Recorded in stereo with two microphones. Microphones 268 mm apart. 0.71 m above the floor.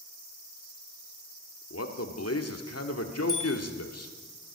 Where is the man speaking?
70° left (ahead or behind), 1.7 m.